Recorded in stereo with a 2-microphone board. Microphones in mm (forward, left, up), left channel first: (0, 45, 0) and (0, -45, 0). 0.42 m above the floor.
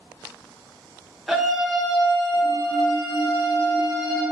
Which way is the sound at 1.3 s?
5° right (ahead or behind).